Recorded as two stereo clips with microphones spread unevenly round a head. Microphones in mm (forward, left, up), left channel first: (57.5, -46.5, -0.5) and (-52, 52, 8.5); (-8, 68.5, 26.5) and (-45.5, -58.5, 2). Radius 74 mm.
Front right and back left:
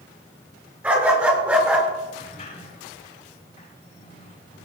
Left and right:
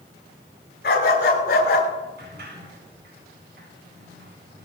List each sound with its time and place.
0.8 s a dog barking: 60° left, 7 m; by 1.9 s 55° left, 6 m
2.2 s a sliding door: 90° right, 7.5 m